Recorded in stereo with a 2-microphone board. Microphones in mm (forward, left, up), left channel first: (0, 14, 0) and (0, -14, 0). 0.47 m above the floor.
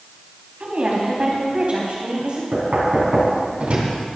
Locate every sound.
0.6 s a woman speaking: 55° right (ahead or behind), 4 m; by 2.4 s 40° right (ahead or behind), 3 m
2.5 s knocking: 50° right (ahead or behind), 3 m